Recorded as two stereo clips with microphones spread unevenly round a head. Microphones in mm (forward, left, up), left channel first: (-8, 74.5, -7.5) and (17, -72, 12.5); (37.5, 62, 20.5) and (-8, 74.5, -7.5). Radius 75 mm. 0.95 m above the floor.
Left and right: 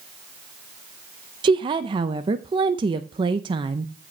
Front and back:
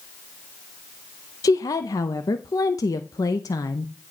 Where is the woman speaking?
25° right, 0.6 m.